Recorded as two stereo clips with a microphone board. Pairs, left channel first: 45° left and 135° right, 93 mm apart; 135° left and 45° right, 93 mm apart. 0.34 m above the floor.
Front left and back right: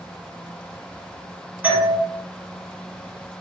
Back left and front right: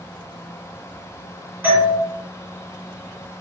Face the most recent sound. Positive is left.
turn(degrees=-95)